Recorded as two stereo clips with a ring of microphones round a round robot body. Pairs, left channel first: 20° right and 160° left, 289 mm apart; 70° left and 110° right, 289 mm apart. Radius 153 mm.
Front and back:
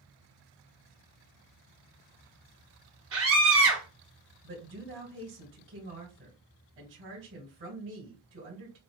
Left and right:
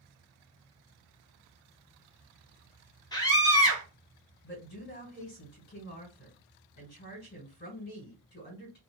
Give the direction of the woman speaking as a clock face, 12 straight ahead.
8 o'clock.